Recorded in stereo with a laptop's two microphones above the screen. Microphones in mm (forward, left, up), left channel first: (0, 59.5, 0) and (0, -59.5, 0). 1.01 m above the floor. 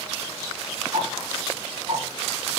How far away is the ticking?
About 3 m.